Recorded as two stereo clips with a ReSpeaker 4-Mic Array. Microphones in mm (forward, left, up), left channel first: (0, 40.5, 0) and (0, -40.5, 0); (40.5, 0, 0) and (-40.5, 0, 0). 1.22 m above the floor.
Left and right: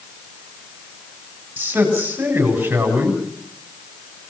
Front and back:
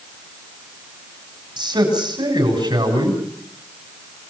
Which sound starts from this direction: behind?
A man speaking, at 1.6 s.